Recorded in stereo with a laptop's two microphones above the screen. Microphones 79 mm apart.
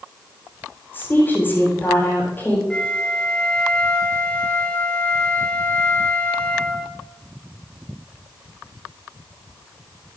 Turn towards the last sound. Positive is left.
turn(degrees=15)  # may be behind; listen again after turning